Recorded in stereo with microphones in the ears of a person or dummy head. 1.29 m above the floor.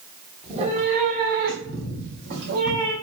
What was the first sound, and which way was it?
A cat meowing, 30° right (ahead or behind).